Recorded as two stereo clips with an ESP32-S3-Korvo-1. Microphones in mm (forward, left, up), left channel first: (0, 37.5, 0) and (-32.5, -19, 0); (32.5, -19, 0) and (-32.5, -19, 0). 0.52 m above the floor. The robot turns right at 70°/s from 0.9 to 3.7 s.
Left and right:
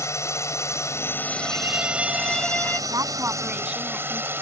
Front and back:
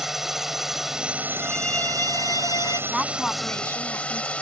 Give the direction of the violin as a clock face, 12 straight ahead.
3 o'clock.